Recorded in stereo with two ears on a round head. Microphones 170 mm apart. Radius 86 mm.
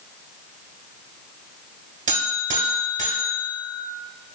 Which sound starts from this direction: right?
A buzzer, at 2.1 s.